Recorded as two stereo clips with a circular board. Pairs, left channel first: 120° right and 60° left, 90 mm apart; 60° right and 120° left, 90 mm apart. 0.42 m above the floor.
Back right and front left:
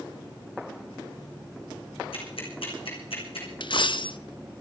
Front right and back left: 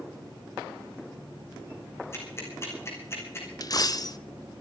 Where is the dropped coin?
100° right, 0.6 m.